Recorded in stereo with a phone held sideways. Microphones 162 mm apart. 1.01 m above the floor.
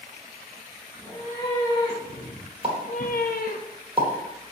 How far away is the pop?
About 1.3 m.